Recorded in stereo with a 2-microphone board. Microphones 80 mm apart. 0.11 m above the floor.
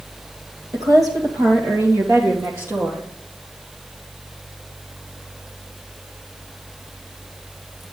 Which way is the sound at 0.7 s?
50° right (ahead or behind).